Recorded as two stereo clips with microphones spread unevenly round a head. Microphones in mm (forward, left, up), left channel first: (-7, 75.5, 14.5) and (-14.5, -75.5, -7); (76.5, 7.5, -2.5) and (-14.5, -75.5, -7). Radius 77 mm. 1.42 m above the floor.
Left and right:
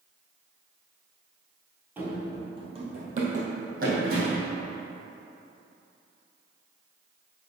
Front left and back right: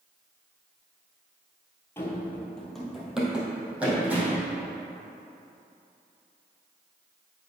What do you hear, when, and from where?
2.0 s running footsteps: 10° right, 1.6 m; by 4.5 s 60° right, 3.5 m